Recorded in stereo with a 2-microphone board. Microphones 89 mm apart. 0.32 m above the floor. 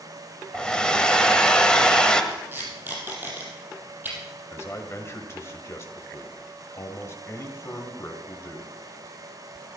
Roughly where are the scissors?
No scissors in this recording.